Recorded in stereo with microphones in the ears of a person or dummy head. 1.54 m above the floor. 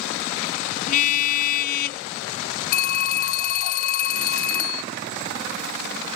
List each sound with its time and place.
0.9 s a car horn: 45° left (ahead or behind); by 2.0 s 55° left (ahead or behind)
2.7 s a phone ringing: 50° left (ahead or behind)